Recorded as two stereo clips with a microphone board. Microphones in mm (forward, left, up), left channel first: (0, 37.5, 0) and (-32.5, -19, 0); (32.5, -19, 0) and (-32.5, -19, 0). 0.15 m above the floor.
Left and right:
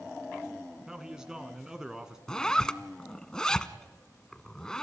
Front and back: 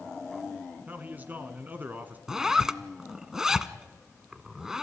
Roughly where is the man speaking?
Behind.